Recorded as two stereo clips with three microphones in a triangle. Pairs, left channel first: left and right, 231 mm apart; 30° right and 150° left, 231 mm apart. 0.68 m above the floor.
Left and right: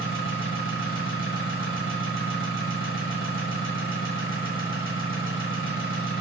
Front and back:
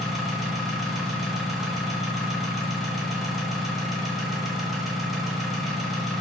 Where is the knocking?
No knocking in this recording.